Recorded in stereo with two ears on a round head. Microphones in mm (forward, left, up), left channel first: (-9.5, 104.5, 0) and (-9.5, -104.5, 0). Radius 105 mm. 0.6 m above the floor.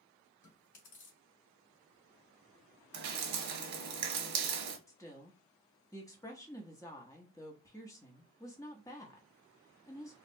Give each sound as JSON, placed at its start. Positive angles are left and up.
{"t": 0.4, "sound": "chewing", "side_deg": 50, "distance_m": 2.0}
{"t": 2.9, "sound": "dripping", "side_deg": -80, "distance_m": 1.1}
{"t": 4.9, "sound": "a woman speaking", "side_deg": 15, "distance_m": 0.8}